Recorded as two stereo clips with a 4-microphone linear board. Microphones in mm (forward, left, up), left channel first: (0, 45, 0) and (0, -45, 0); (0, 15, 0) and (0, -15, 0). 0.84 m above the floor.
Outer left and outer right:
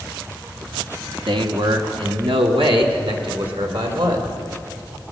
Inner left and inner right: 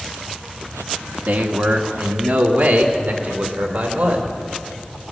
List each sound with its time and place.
1.3 s a man speaking: 65° right (ahead or behind), 1.2 m; by 4.3 s 75° right (ahead or behind), 3 m